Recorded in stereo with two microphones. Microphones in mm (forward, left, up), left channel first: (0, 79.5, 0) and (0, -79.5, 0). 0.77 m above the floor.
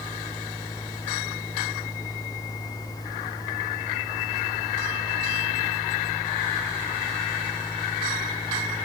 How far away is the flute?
I don't hear a flute.